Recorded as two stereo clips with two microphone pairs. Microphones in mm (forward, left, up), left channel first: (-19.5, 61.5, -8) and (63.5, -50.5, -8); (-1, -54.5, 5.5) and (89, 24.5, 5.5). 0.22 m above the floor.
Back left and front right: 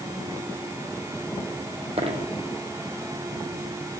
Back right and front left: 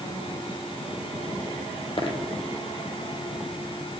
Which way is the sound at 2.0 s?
95° right.